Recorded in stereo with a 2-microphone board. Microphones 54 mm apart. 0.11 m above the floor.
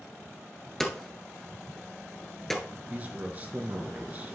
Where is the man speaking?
30° right (ahead or behind), 1.4 m.